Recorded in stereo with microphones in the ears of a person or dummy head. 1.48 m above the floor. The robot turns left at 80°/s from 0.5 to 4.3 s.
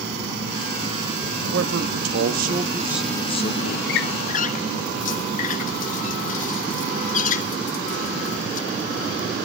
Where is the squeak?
70° left (ahead or behind), 1.4 m; by 8.7 s 50° left (ahead or behind), 1.4 m.